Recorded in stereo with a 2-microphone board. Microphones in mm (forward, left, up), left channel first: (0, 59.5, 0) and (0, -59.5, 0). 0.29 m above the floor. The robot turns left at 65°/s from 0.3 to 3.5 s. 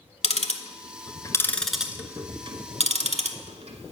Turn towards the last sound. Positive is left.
turn(degrees=-65)  # may be behind; listen again after turning